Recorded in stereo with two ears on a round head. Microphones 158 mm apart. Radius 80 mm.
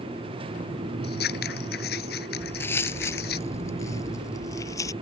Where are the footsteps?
10° left (ahead or behind); by 4.9 s 20° left (ahead or behind).